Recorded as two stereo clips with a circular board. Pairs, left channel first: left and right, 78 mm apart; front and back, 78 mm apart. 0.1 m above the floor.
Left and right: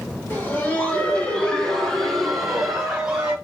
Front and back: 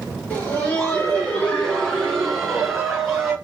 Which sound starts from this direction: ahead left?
Laughter, at 0.3 s.